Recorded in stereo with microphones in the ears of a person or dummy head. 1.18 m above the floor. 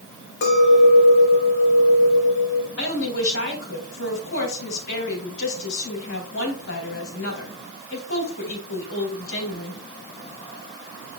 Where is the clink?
65° left (ahead or behind), 1.4 m.